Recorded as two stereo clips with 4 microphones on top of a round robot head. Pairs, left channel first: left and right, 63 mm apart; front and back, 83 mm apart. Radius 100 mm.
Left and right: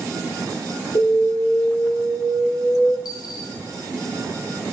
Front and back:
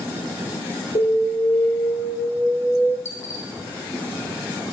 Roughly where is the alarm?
Ahead left.